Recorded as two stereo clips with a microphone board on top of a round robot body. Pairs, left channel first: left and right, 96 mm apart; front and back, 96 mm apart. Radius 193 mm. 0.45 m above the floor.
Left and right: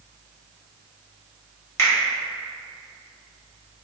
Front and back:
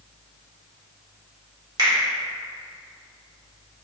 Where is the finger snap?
145° left, 1.5 m.